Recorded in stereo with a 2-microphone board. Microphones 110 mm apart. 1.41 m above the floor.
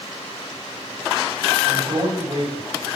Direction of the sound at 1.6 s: 50° right (ahead or behind).